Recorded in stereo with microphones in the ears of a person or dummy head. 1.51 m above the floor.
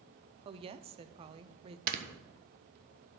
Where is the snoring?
50° right (ahead or behind), 1.2 m.